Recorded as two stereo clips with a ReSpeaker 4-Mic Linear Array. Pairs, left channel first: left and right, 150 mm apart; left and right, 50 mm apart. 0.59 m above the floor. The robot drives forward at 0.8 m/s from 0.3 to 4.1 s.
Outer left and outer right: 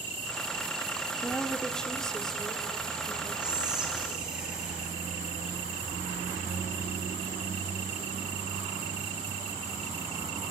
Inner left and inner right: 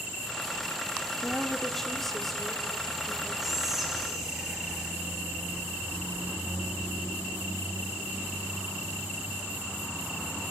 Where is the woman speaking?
5° left (ahead or behind), 1.0 m; by 3.3 s centre (ahead or behind), 2.5 m.